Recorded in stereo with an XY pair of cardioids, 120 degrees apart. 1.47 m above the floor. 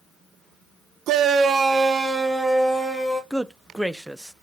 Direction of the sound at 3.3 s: 5° right.